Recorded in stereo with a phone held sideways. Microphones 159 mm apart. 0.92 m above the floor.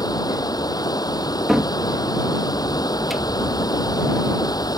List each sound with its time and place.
0.0 s running water: 25° left (ahead or behind)
1.5 s a cupboard door: centre (ahead or behind)